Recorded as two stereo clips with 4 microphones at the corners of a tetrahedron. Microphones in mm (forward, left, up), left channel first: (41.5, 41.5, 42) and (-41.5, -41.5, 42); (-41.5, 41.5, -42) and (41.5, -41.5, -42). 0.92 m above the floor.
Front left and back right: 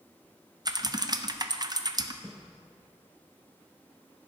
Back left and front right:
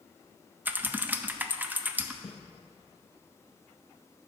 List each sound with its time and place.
0.7 s typing on a keyboard: 110° right, 0.5 m
2.2 s footsteps: 125° left, 1.2 m